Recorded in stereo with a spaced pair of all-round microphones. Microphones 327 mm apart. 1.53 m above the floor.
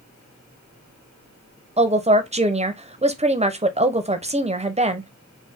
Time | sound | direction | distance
1.8 | a woman speaking | 20° right (ahead or behind) | 0.6 m